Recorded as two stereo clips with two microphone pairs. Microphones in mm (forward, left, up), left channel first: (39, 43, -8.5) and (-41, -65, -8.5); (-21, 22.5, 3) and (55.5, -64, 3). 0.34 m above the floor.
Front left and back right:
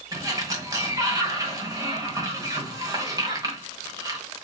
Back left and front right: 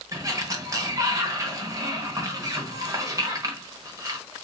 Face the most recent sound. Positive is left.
turn(degrees=-85)